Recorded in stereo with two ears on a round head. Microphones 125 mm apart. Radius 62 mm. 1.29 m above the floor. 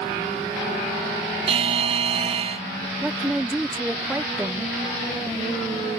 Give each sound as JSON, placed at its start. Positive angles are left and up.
{"t": 1.5, "sound": "a buzzer", "side_deg": -45}
{"t": 3.0, "sound": "a woman speaking", "side_deg": -10}